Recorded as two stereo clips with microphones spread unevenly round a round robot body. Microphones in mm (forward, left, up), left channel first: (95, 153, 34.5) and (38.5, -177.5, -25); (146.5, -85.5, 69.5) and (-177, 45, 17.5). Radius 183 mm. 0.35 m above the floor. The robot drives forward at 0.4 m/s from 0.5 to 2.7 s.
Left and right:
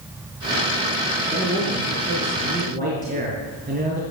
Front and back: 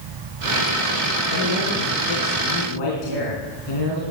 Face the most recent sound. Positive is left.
turn(degrees=-35)